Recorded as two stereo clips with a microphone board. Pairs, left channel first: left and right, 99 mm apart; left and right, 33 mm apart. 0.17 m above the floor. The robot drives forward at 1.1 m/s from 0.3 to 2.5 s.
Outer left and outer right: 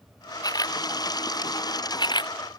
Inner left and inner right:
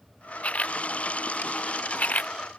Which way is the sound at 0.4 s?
40° left (ahead or behind).